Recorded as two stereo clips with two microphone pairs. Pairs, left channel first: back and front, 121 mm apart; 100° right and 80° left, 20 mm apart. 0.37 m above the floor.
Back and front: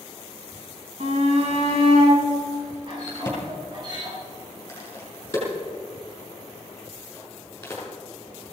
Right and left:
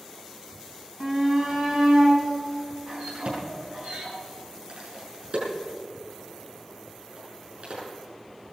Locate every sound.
1.0 s a shout: 25° left, 4 m; by 4.1 s 45° left, 7.5 m
3.1 s a crack: 105° left, 6.5 m